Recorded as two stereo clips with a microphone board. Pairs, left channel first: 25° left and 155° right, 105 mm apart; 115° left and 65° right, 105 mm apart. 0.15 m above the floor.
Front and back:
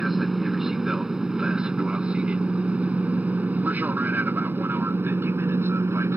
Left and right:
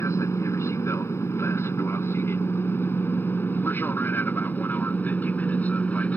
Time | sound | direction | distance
0.0 | an aircraft | 115° left | ?